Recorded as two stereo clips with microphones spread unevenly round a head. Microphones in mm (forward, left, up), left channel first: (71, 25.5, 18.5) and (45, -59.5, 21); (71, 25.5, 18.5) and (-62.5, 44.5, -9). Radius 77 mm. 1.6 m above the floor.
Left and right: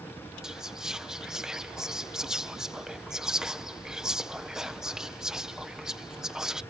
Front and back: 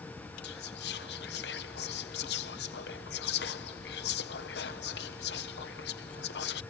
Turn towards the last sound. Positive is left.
turn(degrees=-25)